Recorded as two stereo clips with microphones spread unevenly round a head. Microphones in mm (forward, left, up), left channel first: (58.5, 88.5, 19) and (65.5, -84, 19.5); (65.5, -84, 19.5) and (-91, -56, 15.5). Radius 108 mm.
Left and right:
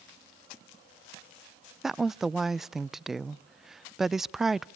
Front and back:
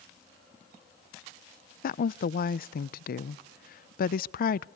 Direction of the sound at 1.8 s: Straight ahead.